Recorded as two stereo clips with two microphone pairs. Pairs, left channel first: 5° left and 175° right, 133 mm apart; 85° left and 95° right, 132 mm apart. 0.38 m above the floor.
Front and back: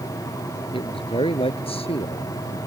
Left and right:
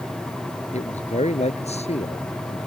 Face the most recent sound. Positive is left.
turn(degrees=45)